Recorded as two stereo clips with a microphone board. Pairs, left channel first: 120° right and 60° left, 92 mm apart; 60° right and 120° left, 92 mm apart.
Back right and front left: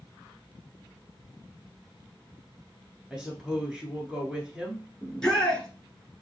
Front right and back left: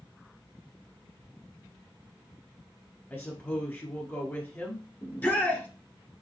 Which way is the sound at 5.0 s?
55° right.